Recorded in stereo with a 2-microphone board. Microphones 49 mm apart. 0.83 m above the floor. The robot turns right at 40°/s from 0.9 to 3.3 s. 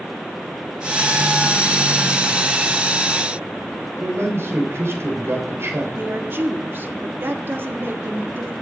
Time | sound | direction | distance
4.0 | a man speaking | 60° right (ahead or behind) | 4 m
6.0 | a woman speaking | 50° right (ahead or behind) | 1.4 m